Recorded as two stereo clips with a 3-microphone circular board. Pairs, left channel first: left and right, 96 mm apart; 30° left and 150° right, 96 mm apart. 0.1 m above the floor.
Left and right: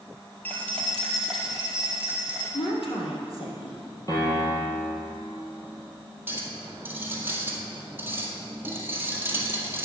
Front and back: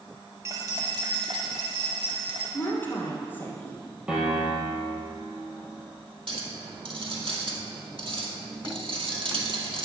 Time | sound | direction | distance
0.5 | keys jangling | 160° left | 1.8 m
2.5 | a woman speaking | 95° left | 3 m
4.1 | a piano | 135° left | 3 m
6.3 | a clink | 155° right | 1.8 m